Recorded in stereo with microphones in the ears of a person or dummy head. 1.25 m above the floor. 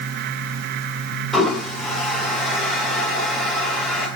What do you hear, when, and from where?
1.3 s a toilet flushing: centre (ahead or behind), 3.5 m